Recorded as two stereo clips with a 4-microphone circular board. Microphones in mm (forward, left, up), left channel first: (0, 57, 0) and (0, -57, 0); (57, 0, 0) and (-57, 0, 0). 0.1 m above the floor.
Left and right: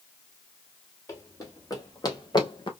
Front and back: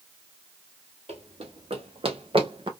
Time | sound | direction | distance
1.1 | running footsteps | 155° left | 2 m